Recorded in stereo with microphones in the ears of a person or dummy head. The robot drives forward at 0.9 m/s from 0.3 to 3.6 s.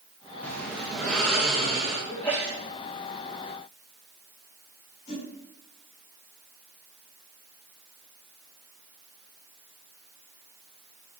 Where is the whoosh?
85° left, 5.5 m.